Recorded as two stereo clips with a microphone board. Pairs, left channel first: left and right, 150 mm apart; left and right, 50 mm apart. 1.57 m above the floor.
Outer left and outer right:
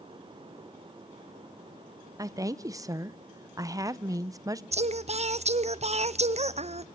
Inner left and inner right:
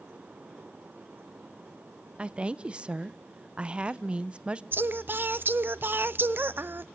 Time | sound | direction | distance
2.2 | a woman speaking | 25° right (ahead or behind) | 0.6 m
4.7 | singing | 45° right (ahead or behind) | 0.5 m